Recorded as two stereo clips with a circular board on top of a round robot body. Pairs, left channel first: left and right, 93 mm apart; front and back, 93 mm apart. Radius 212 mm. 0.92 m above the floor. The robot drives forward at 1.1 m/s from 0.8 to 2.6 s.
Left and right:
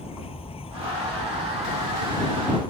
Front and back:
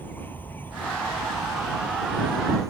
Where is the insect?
70° left; by 2.7 s 120° left.